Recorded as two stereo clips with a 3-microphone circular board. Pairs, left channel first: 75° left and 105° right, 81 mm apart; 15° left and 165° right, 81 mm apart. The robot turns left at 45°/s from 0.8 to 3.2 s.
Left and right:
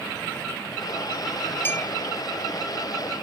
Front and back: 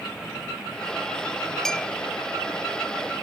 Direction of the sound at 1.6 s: 90° left.